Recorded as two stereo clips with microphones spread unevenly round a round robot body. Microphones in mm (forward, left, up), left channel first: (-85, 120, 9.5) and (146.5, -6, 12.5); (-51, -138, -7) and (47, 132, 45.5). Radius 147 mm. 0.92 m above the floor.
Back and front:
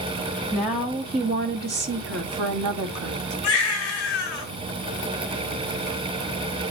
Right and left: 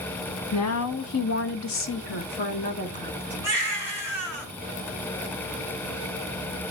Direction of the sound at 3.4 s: 145° right.